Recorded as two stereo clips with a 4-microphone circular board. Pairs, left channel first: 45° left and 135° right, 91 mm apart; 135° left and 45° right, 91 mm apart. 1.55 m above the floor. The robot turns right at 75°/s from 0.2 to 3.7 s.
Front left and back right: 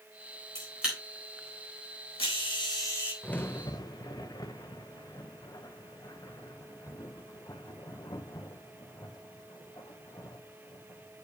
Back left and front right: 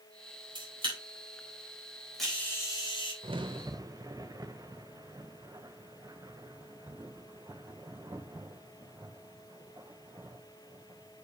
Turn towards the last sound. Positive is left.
turn(degrees=0)